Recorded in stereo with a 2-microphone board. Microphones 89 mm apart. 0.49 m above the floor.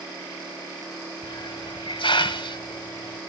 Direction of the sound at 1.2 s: 80° left.